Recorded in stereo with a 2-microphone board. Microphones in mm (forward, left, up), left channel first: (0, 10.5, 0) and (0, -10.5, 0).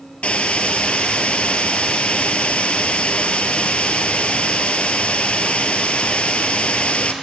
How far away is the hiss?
About 0.8 m.